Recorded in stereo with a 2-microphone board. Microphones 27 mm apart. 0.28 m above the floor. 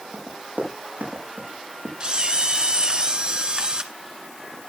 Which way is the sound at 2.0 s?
40° right (ahead or behind).